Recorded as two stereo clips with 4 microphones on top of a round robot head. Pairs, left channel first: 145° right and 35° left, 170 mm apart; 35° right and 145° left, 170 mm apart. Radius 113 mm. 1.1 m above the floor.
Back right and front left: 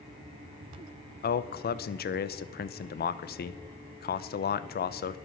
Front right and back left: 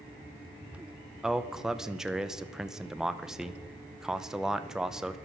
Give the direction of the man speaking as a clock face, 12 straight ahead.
4 o'clock.